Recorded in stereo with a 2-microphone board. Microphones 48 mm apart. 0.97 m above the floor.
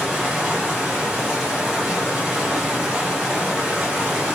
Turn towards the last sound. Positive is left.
turn(degrees=-5)  # may be behind; listen again after turning